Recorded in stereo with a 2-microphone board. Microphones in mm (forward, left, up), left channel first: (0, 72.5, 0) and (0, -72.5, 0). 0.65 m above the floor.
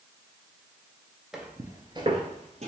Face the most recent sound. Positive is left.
turn(degrees=-50)  # may be behind; listen again after turning